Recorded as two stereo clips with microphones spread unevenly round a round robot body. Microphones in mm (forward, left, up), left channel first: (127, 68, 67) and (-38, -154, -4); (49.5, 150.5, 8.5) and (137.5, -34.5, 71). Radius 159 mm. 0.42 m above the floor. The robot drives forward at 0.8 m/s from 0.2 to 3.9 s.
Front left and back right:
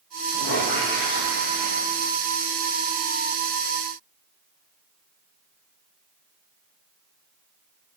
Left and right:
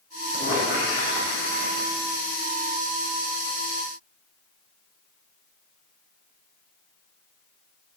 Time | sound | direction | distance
0.3 | a squeak | 65° left | 5.5 m